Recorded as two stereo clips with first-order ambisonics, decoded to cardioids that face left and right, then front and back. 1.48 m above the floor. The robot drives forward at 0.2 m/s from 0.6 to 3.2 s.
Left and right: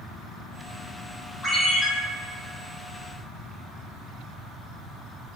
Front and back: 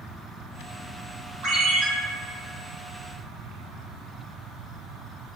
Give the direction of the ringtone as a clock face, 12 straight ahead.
7 o'clock.